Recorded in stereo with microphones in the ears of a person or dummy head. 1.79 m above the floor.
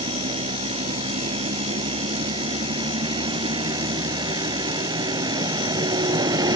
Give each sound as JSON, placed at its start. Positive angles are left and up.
{"t": 0.0, "sound": "a vehicle", "side_deg": -25}